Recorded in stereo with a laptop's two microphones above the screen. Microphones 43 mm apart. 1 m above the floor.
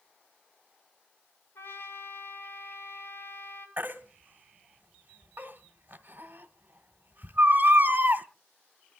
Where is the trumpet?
70° left (ahead or behind), 9 m.